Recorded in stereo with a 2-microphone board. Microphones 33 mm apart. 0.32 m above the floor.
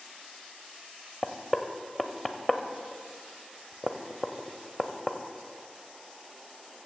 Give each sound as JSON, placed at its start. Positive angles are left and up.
{"t": 1.2, "sound": "knocking", "side_deg": 10, "distance_m": 0.7}